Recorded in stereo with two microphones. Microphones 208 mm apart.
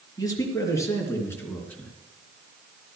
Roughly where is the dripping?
No dripping in this recording.